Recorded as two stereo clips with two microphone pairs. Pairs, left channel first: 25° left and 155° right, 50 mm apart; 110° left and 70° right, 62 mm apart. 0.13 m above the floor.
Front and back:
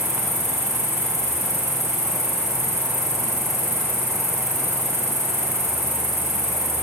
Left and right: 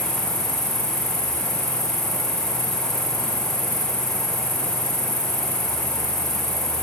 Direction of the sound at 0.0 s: 110° left.